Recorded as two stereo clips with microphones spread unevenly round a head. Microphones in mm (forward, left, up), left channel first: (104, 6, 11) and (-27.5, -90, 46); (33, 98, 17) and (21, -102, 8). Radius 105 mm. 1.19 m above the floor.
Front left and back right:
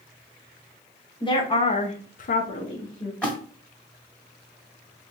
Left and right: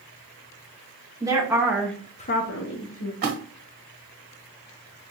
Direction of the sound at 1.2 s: 20° right.